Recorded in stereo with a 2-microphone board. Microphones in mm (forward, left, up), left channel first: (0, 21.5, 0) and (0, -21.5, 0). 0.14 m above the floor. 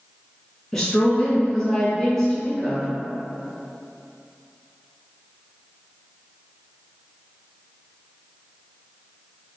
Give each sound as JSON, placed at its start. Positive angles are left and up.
{"t": 0.7, "sound": "a woman speaking", "side_deg": 10, "distance_m": 1.1}